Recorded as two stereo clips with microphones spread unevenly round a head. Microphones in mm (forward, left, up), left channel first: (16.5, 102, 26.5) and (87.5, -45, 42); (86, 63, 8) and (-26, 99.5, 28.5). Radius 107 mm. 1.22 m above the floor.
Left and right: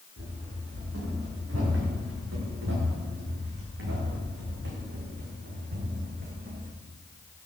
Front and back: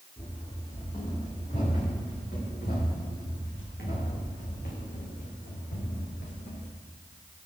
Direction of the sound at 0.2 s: 90° right.